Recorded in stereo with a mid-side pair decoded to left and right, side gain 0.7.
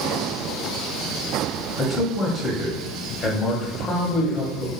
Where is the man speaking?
25° left, 0.8 m.